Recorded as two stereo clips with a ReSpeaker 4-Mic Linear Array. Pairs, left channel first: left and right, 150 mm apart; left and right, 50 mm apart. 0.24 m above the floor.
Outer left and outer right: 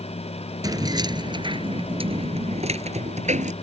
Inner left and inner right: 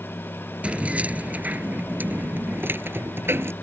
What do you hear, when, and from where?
0.6 s keys jangling: 25° right (ahead or behind); by 3.5 s 55° right (ahead or behind)